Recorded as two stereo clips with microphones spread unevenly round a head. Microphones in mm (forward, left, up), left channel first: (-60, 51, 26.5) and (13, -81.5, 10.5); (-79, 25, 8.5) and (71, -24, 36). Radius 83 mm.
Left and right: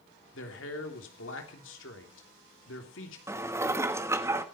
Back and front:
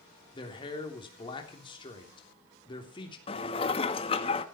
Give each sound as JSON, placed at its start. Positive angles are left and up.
{"t": 0.3, "sound": "a man speaking", "azimuth_deg": 100, "distance_m": 3.0}
{"t": 3.3, "sound": "dishes clattering", "azimuth_deg": -135, "distance_m": 1.3}